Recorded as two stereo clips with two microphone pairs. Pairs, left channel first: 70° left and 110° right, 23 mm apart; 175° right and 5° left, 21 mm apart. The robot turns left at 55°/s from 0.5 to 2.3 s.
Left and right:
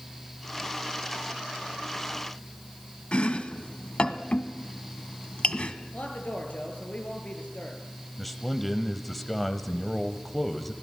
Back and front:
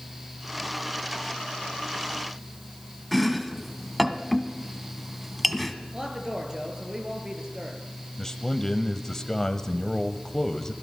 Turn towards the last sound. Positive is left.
turn(degrees=150)